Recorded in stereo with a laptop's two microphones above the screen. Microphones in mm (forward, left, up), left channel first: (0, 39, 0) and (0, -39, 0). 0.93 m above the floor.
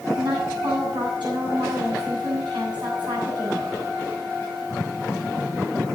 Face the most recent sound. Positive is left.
turn(degrees=-80)